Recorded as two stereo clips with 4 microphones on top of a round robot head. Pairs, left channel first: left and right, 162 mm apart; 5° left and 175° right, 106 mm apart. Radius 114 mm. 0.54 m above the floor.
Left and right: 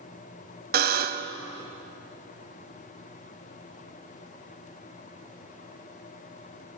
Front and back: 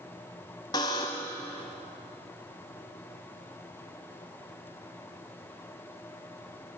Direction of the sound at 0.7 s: 65° right.